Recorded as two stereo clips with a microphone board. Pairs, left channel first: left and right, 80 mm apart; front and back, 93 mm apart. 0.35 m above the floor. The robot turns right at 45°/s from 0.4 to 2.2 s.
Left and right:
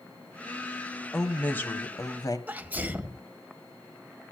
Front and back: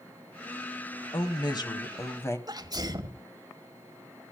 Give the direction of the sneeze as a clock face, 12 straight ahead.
5 o'clock.